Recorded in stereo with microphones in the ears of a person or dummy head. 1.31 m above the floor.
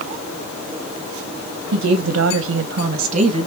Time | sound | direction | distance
1.7 | a woman speaking | 50° right (ahead or behind) | 1.1 m